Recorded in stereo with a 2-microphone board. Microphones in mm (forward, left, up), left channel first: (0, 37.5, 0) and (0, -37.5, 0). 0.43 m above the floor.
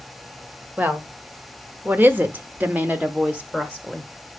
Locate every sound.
0.8 s a woman speaking: 25° right (ahead or behind), 1.6 m; by 4.1 s 10° right (ahead or behind), 1.3 m